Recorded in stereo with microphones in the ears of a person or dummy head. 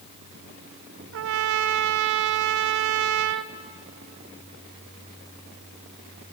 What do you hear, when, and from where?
1.1 s a trumpet: 65° right (ahead or behind), 0.6 m